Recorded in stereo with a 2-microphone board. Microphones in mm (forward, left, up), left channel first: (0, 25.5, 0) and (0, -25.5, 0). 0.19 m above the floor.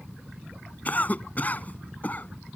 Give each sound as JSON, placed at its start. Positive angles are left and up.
{"t": 0.8, "sound": "a cough", "side_deg": 35}